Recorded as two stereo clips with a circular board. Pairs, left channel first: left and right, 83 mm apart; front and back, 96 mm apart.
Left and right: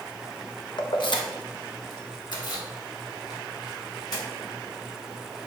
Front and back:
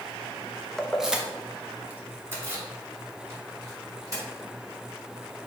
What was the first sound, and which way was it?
Keys jangling, 85° left.